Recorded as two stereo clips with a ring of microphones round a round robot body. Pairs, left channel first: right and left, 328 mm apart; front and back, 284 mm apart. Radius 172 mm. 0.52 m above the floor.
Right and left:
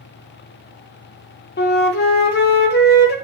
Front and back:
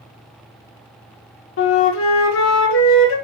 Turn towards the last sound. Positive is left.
turn(degrees=-35)